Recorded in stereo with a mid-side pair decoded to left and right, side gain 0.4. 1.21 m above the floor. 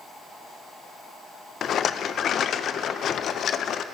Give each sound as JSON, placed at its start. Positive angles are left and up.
{"t": 1.6, "sound": "a rattle", "azimuth_deg": 65, "distance_m": 0.5}